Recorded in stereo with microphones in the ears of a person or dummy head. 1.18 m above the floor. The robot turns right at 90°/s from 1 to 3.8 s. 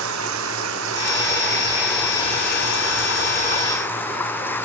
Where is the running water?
80° right; by 4.7 s 170° left.